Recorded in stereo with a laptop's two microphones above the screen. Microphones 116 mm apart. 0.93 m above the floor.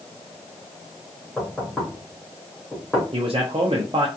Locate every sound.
1.4 s knocking: 10° left (ahead or behind), 1.4 m
3.1 s a man speaking: 55° right (ahead or behind), 0.6 m